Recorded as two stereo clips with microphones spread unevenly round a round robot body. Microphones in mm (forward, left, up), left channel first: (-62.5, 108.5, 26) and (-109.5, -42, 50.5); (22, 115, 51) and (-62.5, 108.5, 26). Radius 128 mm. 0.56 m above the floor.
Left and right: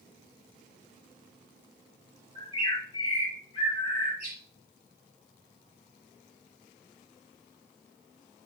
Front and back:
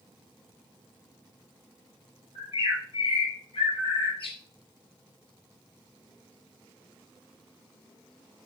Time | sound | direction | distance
2.4 | a bird | 5° left | 4.5 m